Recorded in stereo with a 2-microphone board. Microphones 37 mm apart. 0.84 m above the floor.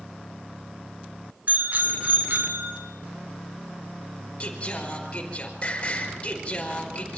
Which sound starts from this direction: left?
Singing, at 4.4 s.